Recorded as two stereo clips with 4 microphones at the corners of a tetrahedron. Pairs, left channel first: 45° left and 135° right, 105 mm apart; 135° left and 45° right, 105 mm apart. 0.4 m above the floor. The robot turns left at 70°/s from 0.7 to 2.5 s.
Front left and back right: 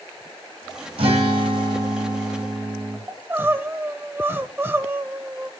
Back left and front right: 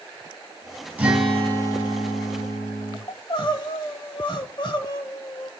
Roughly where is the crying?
Behind.